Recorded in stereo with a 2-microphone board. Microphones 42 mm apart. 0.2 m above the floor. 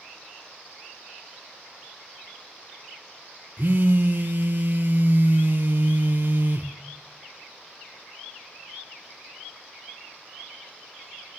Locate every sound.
3.6 s a phone buzzing: 50° right (ahead or behind), 0.5 m